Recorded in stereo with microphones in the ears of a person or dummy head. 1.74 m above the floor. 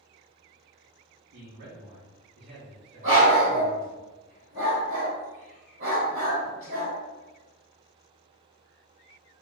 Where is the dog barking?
25° right (ahead or behind), 1.6 m.